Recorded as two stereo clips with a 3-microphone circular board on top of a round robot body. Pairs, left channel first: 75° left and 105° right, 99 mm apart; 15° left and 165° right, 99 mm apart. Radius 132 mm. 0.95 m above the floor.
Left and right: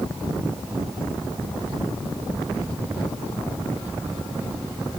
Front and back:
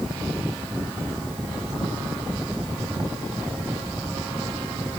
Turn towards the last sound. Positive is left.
No sound to turn to.